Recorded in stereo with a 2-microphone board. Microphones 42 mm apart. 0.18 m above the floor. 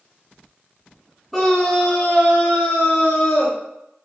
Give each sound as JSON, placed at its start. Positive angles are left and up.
{"t": 1.3, "sound": "a scream", "side_deg": 10, "distance_m": 1.2}